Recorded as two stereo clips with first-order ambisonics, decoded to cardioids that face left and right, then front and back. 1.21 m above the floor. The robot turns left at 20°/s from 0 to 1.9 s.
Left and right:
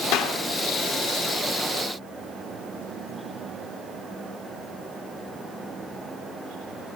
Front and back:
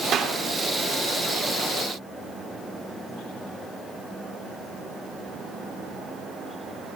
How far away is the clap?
About 2.5 m.